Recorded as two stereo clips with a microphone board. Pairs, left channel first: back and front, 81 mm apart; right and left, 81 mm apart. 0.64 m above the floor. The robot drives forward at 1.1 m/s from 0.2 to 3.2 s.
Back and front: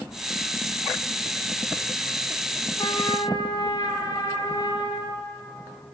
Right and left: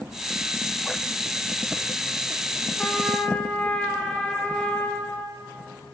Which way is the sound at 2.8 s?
165° right.